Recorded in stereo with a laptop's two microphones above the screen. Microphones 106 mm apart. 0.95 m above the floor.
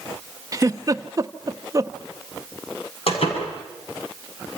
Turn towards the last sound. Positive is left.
turn(degrees=65)  # may be behind; listen again after turning